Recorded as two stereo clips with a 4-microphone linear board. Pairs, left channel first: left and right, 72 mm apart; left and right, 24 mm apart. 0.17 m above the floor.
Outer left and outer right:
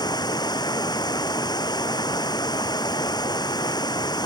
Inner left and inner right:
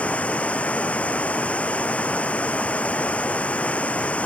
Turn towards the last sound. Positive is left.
turn(degrees=75)  # may be behind; listen again after turning